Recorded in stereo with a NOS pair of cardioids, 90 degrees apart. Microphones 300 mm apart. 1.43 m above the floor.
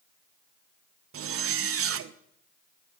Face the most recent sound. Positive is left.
turn(degrees=-50)